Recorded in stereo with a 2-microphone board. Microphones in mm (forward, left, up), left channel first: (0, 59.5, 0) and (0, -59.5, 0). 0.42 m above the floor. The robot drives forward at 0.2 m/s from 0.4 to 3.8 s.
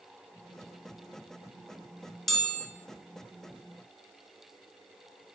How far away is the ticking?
I don't hear ticking.